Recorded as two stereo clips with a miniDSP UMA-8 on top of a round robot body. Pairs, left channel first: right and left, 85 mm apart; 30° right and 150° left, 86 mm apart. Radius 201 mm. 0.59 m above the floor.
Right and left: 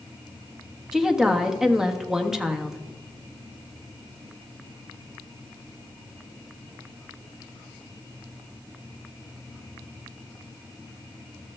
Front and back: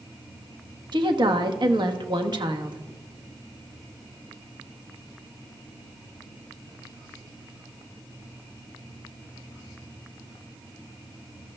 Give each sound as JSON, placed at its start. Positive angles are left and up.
{"t": 0.9, "sound": "a woman speaking", "azimuth_deg": 175, "distance_m": 1.4}